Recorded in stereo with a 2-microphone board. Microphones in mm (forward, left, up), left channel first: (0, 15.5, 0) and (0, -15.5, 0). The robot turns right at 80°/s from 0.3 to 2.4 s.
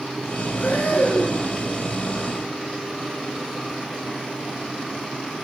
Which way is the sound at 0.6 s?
65° left.